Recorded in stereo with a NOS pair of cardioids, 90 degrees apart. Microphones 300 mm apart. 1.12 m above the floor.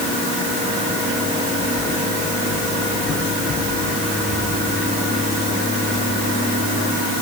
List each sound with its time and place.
Only background noise.